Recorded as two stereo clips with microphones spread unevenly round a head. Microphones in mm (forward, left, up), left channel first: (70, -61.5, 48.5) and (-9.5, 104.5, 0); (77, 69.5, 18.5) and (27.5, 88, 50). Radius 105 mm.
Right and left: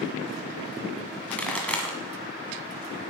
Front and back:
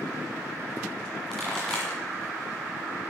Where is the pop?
135° right, 1.5 m.